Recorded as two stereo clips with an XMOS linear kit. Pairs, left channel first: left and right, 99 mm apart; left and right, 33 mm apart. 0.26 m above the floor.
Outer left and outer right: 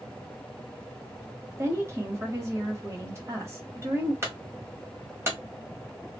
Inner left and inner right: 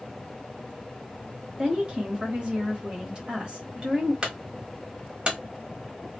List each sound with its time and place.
1.6 s a woman speaking: 30° right (ahead or behind), 1.1 m
4.2 s a clunk: 25° right (ahead or behind), 1.1 m